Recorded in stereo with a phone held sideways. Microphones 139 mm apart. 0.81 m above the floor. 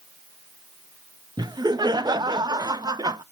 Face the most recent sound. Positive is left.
turn(degrees=-30)  # may be behind; listen again after turning